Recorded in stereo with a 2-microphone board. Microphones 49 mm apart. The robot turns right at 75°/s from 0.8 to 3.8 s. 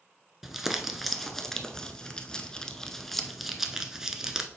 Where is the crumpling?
5° right (ahead or behind), 0.6 m; by 4.5 s 10° right (ahead or behind), 0.6 m.